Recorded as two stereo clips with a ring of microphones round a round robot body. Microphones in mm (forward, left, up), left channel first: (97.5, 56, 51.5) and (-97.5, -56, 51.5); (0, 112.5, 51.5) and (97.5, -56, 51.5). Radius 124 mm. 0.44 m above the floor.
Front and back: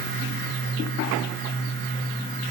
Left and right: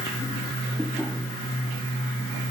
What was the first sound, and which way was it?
Only background noise.